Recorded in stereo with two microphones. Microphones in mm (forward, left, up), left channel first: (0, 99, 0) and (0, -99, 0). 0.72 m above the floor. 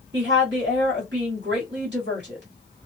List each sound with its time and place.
0.1 s a woman speaking: 60° right (ahead or behind), 1.8 m